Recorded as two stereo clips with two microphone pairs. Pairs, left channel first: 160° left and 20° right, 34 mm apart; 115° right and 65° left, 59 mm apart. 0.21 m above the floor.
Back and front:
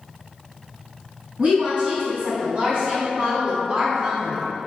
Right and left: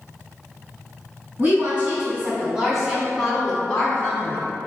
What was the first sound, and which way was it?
A woman speaking, 20° left.